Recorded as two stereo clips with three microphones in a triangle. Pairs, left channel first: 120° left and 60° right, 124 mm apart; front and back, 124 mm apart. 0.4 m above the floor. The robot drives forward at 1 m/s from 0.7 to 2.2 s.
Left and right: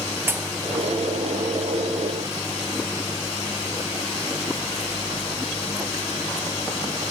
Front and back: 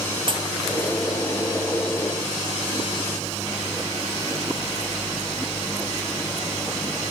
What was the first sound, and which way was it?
A pop, 135° right.